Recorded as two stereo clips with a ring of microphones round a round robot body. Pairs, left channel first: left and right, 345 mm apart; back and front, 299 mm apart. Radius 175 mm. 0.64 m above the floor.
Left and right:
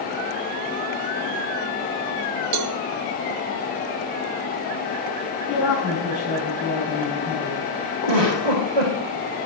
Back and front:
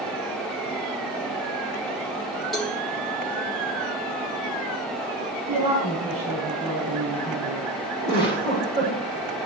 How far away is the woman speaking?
About 5.5 m.